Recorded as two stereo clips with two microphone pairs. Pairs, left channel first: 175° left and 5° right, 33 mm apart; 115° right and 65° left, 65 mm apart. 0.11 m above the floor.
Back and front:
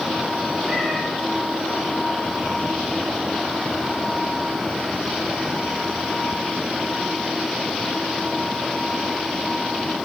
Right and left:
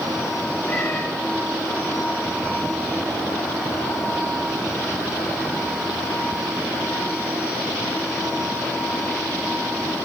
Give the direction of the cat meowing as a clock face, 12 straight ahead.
2 o'clock.